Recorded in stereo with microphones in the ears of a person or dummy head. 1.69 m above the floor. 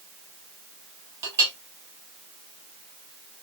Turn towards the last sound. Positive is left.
turn(degrees=-20)  # may be behind; listen again after turning